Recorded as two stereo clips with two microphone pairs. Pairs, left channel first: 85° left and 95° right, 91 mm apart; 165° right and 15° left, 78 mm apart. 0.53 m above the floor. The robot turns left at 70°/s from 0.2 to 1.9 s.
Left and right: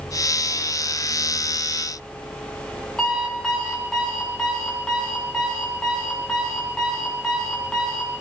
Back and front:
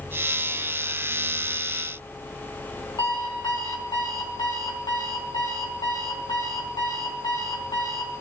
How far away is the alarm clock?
About 3 m.